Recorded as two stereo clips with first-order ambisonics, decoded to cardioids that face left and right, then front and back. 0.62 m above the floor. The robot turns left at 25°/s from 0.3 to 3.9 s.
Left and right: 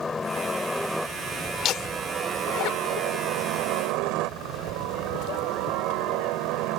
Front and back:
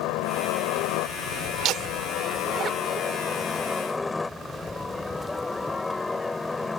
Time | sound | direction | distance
0.0 | a helicopter | 15° left | ?
1.6 | laughter | 140° left | ?